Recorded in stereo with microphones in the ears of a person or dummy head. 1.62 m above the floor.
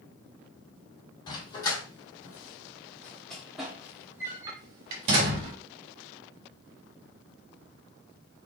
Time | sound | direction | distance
1.3 | a dog barking | 25° left (ahead or behind) | 2.0 m